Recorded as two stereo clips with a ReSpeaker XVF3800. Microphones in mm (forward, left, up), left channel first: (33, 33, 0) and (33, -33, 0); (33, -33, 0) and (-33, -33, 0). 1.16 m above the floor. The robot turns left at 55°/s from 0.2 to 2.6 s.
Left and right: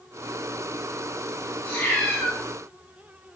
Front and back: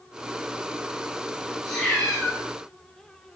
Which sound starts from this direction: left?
A cat meowing, at 1.6 s.